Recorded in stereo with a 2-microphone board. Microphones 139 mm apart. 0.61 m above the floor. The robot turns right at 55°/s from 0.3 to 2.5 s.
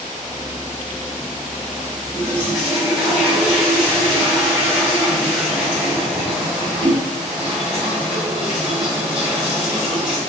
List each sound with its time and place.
2.1 s a toilet flushing: 25° right (ahead or behind), 1.3 m; by 10.2 s 5° right (ahead or behind), 1.3 m